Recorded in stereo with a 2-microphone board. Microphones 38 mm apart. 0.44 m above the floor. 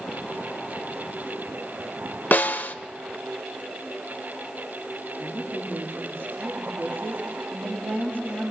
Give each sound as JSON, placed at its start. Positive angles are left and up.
{"t": 2.3, "sound": "a snare drum", "side_deg": 55, "distance_m": 1.2}
{"t": 5.2, "sound": "a woman speaking", "side_deg": -75, "distance_m": 6.5}